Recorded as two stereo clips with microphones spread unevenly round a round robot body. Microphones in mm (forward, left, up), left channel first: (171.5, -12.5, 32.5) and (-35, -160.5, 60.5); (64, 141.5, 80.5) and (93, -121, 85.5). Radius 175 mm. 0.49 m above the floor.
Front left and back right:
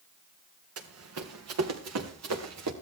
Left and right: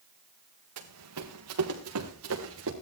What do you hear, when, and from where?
0.8 s running footsteps: 120° right, 3 m; by 2.7 s 135° right, 3.5 m